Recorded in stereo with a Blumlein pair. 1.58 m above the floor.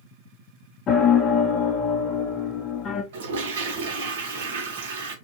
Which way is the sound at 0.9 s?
30° left.